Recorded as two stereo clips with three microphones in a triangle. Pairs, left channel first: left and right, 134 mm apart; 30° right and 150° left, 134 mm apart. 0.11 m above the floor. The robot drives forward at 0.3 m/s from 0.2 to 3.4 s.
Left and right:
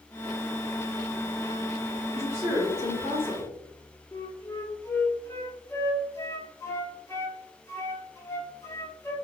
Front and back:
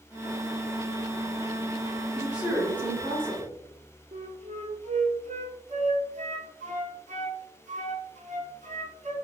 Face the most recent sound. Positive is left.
turn(degrees=155)